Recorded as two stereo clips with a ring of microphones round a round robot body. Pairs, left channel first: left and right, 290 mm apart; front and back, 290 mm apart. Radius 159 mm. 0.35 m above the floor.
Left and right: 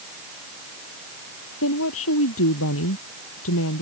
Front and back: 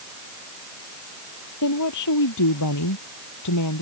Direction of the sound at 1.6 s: 40° left.